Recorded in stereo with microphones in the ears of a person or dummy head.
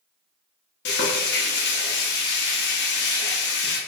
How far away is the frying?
About 0.7 m.